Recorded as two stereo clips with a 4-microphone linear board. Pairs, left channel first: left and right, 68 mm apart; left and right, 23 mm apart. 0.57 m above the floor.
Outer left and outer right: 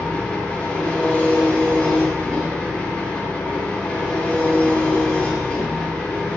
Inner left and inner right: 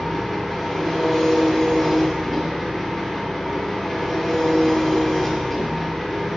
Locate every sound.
0.0 s an engine running: 15° left (ahead or behind), 0.8 m